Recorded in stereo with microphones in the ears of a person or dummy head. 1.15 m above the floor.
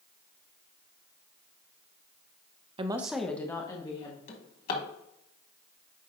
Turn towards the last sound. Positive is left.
turn(degrees=45)  # may be behind; listen again after turning